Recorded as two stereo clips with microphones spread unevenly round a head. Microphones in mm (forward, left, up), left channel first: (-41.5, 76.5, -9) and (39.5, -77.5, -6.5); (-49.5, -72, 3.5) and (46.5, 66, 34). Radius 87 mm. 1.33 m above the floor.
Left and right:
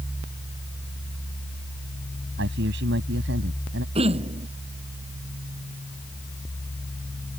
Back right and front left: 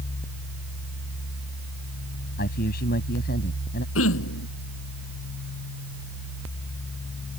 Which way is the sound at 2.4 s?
85° right.